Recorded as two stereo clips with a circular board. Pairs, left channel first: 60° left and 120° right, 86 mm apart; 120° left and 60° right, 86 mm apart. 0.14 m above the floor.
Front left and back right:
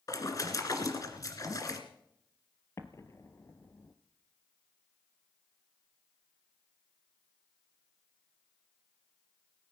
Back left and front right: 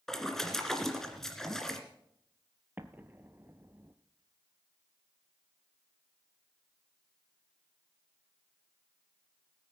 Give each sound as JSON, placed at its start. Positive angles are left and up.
{"t": 0.1, "sound": "a splash", "azimuth_deg": 40, "distance_m": 2.0}
{"t": 2.8, "sound": "an explosion", "azimuth_deg": 5, "distance_m": 1.0}